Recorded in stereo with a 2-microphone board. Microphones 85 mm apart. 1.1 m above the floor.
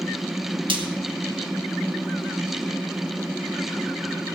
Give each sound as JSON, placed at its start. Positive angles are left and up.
{"t": 0.7, "sound": "frying", "side_deg": -80, "distance_m": 2.5}